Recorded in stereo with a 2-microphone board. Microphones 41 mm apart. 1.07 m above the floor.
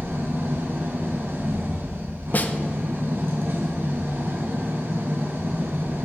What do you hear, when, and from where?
0.0 s an engine running: 60° right (ahead or behind), 3.5 m
2.3 s a snare drum: 40° left (ahead or behind), 1.0 m